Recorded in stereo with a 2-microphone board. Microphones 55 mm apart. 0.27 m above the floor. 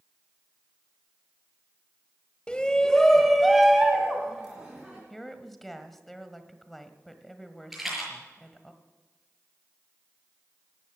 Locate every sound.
2.5 s a shout: 20° left (ahead or behind), 1.3 m; by 5.0 s 15° right (ahead or behind), 3 m
5.1 s a woman speaking: 5° left (ahead or behind), 1.4 m
7.7 s a rattle: 5° right (ahead or behind), 6 m